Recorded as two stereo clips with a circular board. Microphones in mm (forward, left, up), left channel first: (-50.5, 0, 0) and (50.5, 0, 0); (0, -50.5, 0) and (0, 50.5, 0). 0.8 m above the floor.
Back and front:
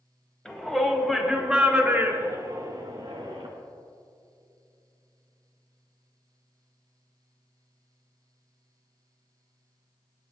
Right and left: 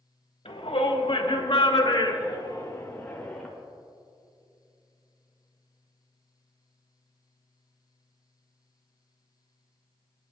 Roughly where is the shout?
Right.